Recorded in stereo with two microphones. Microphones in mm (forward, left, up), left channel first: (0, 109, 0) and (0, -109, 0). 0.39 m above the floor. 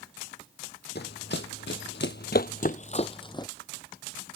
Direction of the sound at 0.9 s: 55° left (ahead or behind).